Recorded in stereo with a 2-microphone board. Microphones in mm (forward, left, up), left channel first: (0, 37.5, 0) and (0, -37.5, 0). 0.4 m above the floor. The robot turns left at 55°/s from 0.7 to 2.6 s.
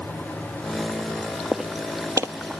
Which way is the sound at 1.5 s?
5° right (ahead or behind).